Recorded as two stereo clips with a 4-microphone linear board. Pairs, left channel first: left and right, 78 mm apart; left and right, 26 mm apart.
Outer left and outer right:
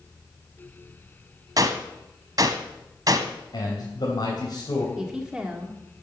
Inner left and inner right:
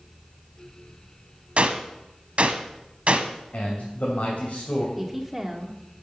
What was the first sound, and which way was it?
A gunshot, 50° right (ahead or behind).